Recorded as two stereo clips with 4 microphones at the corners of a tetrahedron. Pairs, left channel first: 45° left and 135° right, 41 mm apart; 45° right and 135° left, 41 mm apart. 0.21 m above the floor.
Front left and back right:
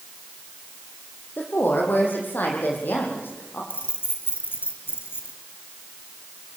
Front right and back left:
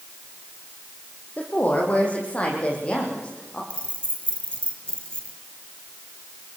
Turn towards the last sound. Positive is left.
turn(degrees=20)